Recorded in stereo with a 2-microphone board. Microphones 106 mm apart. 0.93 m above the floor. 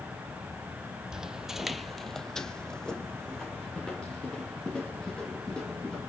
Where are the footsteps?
5° right (ahead or behind), 1.3 m; by 6.0 s 10° left (ahead or behind), 6.5 m.